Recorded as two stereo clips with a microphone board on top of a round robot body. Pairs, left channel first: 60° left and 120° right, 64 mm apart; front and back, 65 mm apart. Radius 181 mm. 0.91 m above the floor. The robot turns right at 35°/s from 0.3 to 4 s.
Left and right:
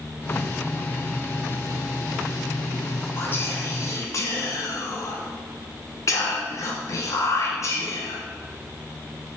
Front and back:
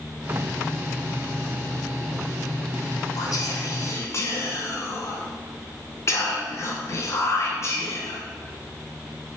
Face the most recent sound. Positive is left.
turn(degrees=35)